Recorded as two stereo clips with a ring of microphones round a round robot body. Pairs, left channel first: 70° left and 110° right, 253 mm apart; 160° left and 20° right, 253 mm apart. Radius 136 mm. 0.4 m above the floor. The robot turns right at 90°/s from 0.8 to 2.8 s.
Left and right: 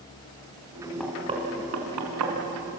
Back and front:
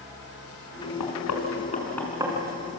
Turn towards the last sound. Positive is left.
turn(degrees=-45)